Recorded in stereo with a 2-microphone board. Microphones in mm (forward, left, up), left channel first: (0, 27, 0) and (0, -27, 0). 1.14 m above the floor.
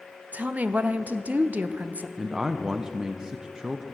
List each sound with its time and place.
0.3 s a woman speaking: 30° right (ahead or behind), 0.6 m
2.2 s a man speaking: 15° right (ahead or behind), 0.6 m